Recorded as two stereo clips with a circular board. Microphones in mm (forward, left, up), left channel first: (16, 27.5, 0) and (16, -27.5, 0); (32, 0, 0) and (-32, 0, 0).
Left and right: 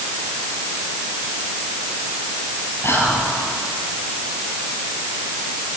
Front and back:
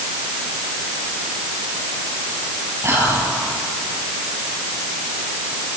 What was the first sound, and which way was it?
Whispering, 130° left.